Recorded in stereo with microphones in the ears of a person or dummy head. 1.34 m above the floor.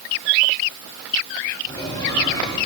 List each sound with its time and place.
1.7 s a squeak: 25° left (ahead or behind), 3 m